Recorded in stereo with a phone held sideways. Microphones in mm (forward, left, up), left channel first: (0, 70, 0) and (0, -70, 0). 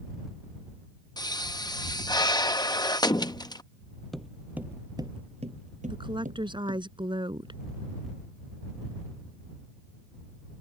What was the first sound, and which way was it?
A pop, 30° left (ahead or behind).